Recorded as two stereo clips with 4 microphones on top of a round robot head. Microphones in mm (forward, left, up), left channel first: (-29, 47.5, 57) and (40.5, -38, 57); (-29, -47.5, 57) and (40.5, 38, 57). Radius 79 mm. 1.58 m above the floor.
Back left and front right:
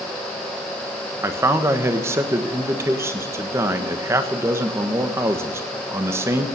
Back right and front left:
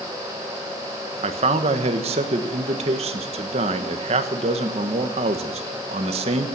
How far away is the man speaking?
About 1.4 m.